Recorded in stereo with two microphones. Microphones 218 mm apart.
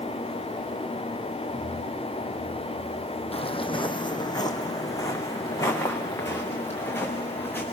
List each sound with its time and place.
3.3 s footsteps: 25° left (ahead or behind), 1.4 m; by 7.6 s 10° left (ahead or behind), 4.5 m